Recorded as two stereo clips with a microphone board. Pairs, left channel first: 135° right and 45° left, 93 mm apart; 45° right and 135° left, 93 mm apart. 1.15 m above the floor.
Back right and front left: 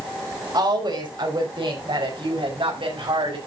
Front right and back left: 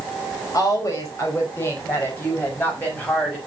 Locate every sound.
0.5 s a woman speaking: 10° left, 5 m; by 3.4 s 30° left, 6.5 m